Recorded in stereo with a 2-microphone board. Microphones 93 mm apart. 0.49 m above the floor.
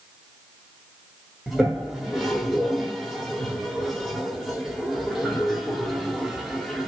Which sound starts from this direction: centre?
A toilet flushing, at 1.5 s.